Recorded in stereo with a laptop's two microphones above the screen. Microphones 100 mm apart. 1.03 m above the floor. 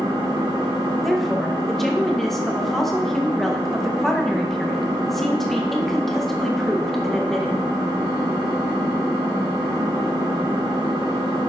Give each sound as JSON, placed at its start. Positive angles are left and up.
{"t": 0.0, "sound": "an engine running", "side_deg": -55, "distance_m": 4.0}
{"t": 1.0, "sound": "a woman speaking", "side_deg": 0, "distance_m": 0.8}